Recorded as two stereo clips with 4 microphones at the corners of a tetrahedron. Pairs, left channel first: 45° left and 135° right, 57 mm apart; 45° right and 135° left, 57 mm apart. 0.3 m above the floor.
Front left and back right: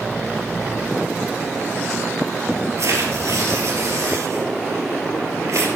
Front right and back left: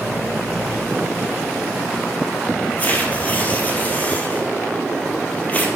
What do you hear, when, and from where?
2.8 s tearing paper: 110° right, 2.5 m